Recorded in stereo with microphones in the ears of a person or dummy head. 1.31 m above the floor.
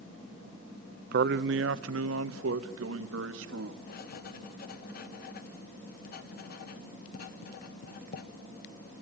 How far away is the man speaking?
About 0.7 m.